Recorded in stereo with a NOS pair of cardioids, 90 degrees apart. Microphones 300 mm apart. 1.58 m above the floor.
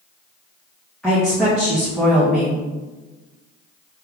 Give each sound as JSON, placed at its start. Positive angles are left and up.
{"t": 1.0, "sound": "a woman speaking", "azimuth_deg": 0, "distance_m": 1.5}